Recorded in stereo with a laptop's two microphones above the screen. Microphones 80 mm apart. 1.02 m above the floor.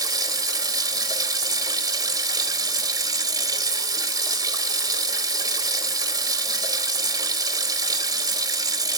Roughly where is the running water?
Right.